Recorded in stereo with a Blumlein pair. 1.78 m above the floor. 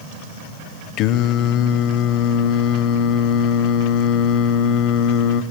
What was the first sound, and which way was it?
Singing, 40° left.